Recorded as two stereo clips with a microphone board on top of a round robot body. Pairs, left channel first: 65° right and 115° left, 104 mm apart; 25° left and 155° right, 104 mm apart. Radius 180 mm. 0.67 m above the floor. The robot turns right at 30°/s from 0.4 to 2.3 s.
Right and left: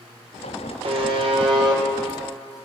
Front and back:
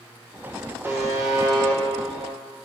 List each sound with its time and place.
0.8 s a buzzer: 135° left, 3 m; by 1.8 s 165° left, 3 m